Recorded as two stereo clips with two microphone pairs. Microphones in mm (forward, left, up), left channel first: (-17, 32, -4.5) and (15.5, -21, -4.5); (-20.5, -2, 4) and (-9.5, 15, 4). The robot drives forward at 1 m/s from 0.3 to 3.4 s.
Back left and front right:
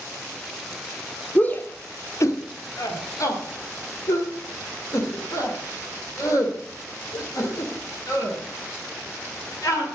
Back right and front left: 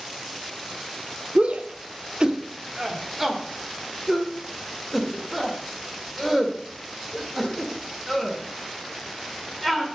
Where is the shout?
55° left, 1.4 m; by 9.8 s 140° left, 1.8 m.